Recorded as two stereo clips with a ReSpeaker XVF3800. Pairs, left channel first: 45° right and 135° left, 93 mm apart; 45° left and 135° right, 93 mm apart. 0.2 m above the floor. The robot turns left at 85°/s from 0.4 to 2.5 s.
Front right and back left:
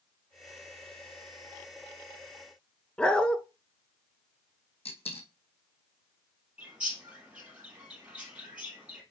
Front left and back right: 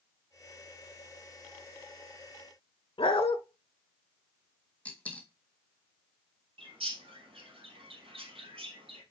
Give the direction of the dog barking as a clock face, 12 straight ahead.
11 o'clock.